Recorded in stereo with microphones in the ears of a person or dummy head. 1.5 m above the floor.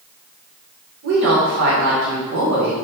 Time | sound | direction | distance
1.0 | a woman speaking | 70° right (ahead or behind) | 1.1 m